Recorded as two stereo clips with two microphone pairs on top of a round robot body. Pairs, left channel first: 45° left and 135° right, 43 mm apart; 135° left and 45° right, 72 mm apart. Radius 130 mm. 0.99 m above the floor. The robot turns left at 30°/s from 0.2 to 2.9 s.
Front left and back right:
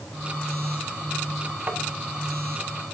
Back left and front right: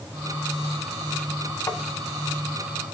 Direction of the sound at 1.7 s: Straight behind.